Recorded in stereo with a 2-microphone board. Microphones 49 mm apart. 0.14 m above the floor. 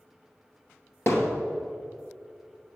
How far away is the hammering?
About 1.9 m.